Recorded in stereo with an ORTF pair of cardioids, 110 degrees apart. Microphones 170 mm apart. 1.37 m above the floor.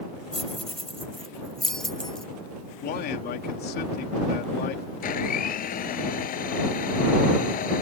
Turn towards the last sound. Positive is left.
turn(degrees=55)